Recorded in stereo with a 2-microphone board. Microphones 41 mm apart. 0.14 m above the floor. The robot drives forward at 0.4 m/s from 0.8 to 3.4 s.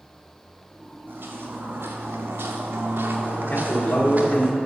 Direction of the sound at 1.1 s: 60° right (ahead or behind).